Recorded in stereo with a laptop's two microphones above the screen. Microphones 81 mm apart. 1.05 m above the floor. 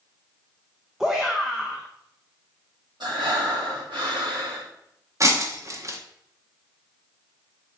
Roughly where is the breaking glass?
Right.